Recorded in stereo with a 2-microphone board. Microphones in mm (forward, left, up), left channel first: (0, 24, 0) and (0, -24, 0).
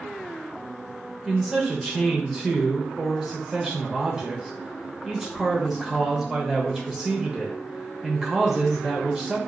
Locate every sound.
1.2 s a man speaking: 5° right (ahead or behind), 0.8 m